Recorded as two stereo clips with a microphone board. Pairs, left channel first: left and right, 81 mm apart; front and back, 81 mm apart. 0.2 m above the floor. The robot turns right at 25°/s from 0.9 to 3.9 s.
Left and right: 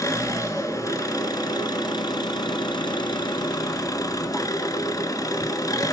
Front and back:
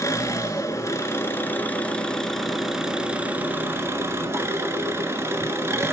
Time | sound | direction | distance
0.0 | an engine running | 50° left | 1.2 m